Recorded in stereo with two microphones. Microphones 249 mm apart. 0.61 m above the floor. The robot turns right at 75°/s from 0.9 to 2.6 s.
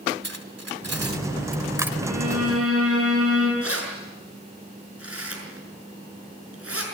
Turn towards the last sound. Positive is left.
turn(degrees=-65)  # may be behind; listen again after turning